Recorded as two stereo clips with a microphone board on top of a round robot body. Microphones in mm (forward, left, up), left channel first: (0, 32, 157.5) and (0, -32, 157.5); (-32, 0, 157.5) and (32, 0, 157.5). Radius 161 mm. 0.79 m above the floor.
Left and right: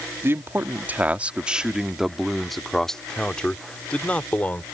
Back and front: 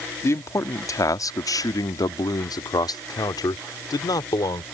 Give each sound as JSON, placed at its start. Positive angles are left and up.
{"t": 0.2, "sound": "a man speaking", "azimuth_deg": -140}